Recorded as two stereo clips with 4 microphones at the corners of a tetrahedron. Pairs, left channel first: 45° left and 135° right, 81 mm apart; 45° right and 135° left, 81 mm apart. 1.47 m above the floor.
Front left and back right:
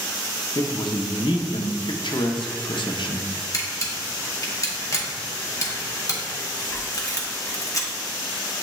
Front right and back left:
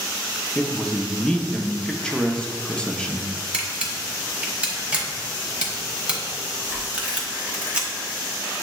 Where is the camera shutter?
65° left, 0.8 m.